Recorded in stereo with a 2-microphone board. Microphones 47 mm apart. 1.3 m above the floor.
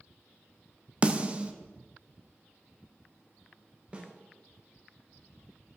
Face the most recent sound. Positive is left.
turn(degrees=-25)  # may be behind; listen again after turning